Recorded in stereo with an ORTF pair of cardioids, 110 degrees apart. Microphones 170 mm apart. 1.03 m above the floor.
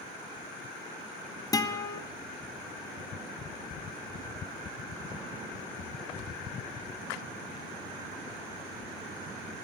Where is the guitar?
20° left, 0.9 m.